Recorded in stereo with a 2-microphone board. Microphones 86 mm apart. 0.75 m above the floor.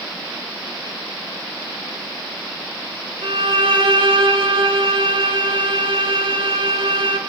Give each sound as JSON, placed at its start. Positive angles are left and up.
{"t": 3.2, "sound": "a violin", "side_deg": -80, "distance_m": 2.5}